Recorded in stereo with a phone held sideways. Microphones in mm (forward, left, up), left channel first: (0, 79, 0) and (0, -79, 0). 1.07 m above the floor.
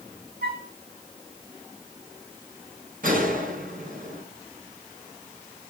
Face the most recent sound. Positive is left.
turn(degrees=-60)  # may be behind; listen again after turning